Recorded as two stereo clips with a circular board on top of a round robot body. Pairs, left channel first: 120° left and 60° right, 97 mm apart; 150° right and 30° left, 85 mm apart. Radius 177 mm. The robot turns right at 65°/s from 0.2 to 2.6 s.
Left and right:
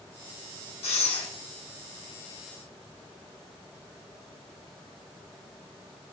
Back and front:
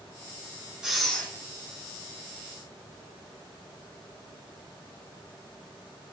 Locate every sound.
0.8 s breathing: 110° left, 1.6 m; by 1.3 s 140° left, 1.6 m